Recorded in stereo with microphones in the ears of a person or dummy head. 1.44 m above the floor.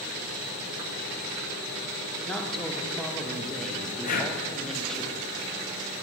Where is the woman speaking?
Centre (ahead or behind), 0.5 m.